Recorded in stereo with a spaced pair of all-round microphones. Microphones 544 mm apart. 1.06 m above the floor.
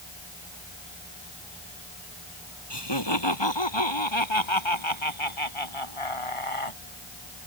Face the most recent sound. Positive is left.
turn(degrees=70)  # may be behind; listen again after turning